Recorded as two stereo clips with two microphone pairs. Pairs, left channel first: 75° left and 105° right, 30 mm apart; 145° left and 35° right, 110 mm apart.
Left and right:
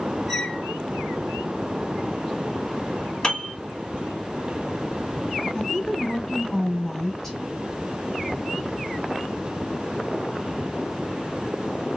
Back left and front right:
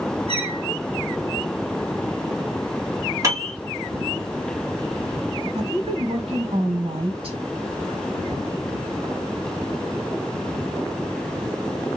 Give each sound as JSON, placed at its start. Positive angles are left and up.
{"t": 0.3, "sound": "a squeak", "azimuth_deg": 0, "distance_m": 1.9}
{"t": 3.2, "sound": "a piano", "azimuth_deg": 20, "distance_m": 2.0}
{"t": 5.5, "sound": "a woman speaking", "azimuth_deg": 0, "distance_m": 2.0}